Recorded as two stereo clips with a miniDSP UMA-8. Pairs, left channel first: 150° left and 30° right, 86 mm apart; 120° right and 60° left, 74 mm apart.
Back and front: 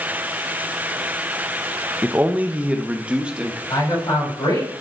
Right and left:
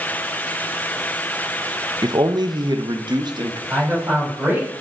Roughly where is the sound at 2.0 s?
Ahead left.